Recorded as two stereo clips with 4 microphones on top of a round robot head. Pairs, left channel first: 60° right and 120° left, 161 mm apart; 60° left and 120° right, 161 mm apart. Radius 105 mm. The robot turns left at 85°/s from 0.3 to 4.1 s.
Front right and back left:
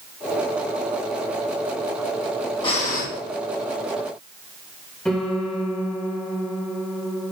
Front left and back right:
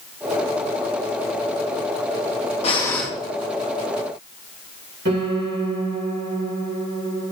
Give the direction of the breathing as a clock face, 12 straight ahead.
12 o'clock.